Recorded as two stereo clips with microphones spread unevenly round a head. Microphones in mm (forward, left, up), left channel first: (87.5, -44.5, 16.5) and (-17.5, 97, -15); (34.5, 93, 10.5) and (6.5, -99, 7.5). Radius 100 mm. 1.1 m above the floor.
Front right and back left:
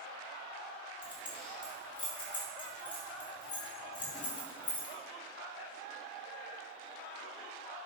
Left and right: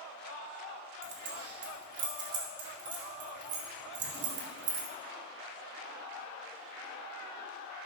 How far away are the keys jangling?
About 1.9 m.